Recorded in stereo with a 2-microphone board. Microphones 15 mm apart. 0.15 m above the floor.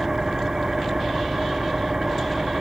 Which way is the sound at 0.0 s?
35° right (ahead or behind).